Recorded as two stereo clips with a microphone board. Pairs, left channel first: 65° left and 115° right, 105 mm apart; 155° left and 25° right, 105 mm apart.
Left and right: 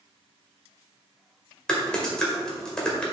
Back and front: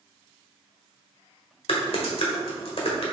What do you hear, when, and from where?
1.7 s typing on a keyboard: 150° left, 1.6 m